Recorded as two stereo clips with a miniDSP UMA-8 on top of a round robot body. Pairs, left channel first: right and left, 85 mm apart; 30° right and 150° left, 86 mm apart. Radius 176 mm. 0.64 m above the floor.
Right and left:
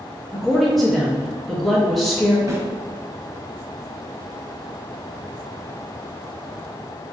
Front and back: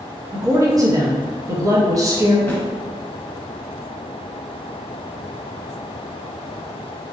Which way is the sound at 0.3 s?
175° right.